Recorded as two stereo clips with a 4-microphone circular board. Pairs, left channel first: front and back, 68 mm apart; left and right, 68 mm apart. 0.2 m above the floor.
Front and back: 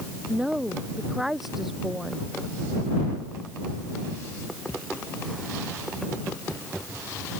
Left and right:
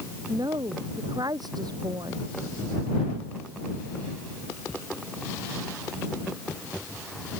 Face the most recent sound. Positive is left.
turn(degrees=-90)